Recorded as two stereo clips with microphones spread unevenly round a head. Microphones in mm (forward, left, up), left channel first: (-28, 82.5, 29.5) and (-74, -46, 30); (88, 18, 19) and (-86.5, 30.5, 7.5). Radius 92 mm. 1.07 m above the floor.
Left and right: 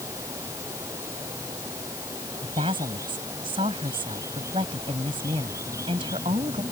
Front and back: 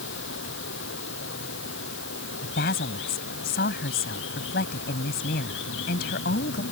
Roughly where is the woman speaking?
Ahead right.